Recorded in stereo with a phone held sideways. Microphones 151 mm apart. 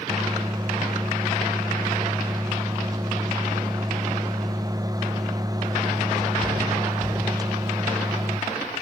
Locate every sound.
0.1 s a microwave: 25° right (ahead or behind), 0.6 m